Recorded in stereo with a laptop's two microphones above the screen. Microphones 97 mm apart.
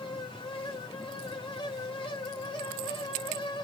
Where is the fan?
60° left (ahead or behind), 1.1 m.